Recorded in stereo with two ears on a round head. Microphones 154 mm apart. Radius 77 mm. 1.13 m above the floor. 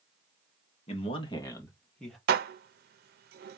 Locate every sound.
0.9 s a man speaking: 40° left (ahead or behind), 1.7 m; by 2.2 s centre (ahead or behind), 1.7 m
2.3 s dishes clattering: 65° right (ahead or behind), 0.6 m